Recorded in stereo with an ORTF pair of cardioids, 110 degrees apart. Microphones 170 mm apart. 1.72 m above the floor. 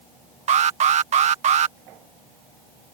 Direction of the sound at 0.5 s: 45° right.